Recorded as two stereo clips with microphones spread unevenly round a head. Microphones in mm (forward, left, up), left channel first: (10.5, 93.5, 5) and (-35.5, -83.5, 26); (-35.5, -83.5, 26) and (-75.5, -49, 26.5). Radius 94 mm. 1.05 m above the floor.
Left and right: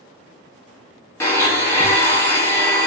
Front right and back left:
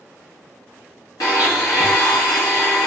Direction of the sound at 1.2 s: 5° right.